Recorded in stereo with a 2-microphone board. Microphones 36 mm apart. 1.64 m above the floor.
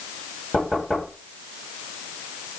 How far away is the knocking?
About 9 m.